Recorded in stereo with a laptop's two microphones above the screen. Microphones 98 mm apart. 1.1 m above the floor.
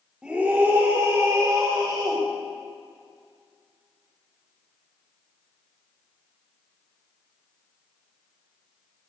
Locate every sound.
0.2 s a scream: 10° right (ahead or behind), 1.4 m; by 2.2 s 40° right (ahead or behind), 3 m